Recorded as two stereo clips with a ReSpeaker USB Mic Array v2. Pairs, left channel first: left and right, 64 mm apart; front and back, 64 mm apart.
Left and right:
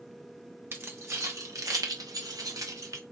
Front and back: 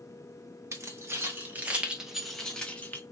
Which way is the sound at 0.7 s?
135° right.